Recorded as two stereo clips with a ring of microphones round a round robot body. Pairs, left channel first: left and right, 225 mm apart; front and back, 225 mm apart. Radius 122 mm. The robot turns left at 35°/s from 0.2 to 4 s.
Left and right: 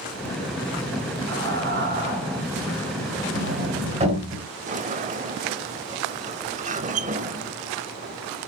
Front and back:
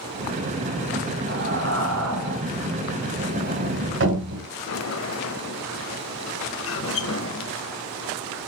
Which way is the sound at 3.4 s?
130° right.